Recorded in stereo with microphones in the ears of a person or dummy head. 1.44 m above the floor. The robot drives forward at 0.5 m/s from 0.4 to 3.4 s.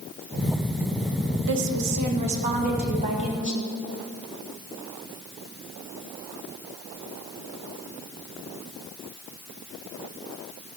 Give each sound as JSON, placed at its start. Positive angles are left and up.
{"t": 1.5, "sound": "a woman speaking", "side_deg": -70, "distance_m": 1.3}